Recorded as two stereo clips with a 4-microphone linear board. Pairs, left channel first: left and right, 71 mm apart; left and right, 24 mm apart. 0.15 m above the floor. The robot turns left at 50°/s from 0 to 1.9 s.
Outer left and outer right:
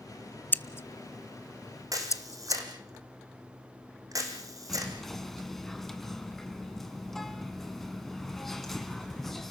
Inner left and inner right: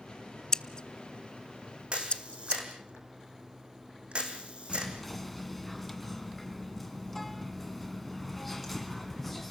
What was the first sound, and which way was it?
Scissors, 25° left (ahead or behind).